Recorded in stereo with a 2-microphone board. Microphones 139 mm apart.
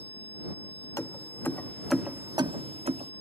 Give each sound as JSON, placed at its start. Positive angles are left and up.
{"t": 1.0, "sound": "keys jangling", "side_deg": 25}